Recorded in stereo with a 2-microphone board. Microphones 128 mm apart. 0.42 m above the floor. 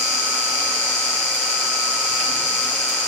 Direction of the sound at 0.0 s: 65° right (ahead or behind).